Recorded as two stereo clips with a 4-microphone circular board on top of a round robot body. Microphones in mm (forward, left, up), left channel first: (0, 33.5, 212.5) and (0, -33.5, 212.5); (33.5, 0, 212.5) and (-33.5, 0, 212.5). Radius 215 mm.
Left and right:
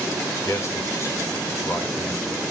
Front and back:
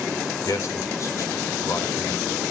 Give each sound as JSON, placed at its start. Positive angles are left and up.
{"t": 0.5, "sound": "a man speaking", "azimuth_deg": 45, "distance_m": 3.5}